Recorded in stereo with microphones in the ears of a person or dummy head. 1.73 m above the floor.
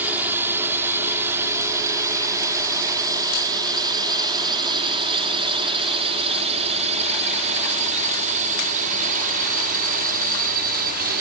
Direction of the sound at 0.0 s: 15° right (ahead or behind).